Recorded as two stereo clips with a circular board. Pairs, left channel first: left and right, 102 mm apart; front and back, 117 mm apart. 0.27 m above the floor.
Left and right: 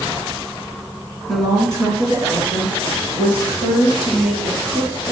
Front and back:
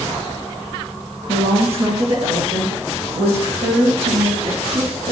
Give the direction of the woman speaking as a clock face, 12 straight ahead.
5 o'clock.